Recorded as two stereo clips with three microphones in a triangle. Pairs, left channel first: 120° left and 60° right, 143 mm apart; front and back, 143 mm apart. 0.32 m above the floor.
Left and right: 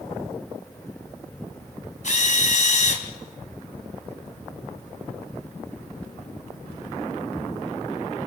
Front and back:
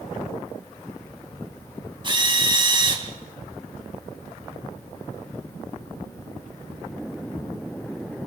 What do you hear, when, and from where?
2.0 s a drill: 130° left, 3 m